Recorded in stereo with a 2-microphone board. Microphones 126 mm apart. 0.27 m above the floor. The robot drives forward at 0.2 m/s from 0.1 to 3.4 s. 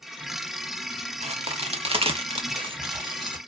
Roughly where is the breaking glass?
No breaking glass in this recording.